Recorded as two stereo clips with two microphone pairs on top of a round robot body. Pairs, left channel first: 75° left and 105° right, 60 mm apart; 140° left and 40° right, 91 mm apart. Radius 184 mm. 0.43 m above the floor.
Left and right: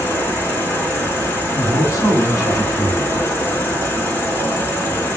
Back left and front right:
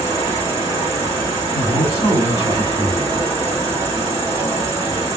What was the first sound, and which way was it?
An insect, 20° left.